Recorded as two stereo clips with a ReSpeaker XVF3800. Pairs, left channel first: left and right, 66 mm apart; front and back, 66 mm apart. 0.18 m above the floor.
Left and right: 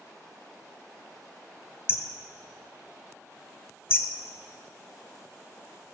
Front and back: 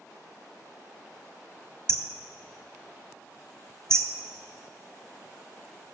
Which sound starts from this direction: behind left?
Hammering, at 1.9 s.